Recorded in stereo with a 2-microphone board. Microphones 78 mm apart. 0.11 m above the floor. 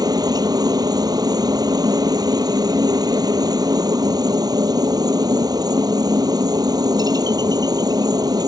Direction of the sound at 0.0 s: 55° right (ahead or behind).